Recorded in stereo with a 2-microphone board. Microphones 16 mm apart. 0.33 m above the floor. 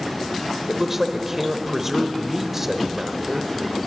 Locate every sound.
0.7 s a man speaking: 20° right (ahead or behind), 0.9 m